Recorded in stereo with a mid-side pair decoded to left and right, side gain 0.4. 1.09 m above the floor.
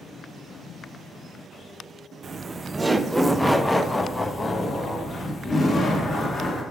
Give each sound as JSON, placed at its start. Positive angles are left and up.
{"t": 2.2, "sound": "laughter", "azimuth_deg": -45, "distance_m": 0.8}